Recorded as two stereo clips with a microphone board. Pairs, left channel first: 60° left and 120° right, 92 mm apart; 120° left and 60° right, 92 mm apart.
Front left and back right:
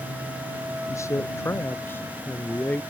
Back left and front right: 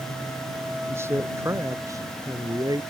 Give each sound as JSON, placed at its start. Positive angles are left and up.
{"t": 0.9, "sound": "a man speaking", "azimuth_deg": 5}